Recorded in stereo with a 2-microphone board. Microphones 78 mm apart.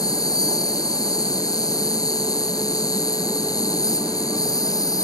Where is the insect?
50° left (ahead or behind).